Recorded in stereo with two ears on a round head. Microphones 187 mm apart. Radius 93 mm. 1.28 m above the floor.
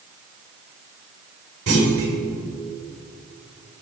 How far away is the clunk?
About 4 m.